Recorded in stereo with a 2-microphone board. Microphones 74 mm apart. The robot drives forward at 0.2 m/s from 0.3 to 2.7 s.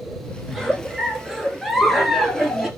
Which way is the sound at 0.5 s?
Centre (ahead or behind).